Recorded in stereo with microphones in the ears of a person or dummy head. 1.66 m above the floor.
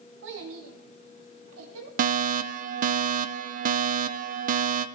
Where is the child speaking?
65° right (ahead or behind), 2.5 m; by 1.9 s 80° right, 3 m.